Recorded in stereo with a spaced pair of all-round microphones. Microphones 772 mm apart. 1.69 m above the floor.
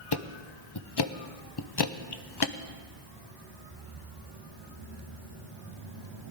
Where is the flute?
No flute in this recording.